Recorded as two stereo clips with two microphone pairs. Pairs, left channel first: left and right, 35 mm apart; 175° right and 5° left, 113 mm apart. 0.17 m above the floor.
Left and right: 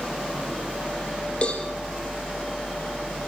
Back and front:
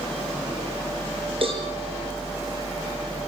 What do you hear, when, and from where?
1.4 s a cowbell: 35° left, 5 m